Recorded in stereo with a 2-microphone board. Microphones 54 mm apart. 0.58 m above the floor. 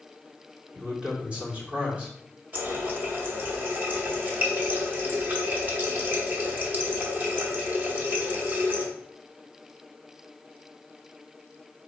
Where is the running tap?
40° right (ahead or behind), 0.9 m.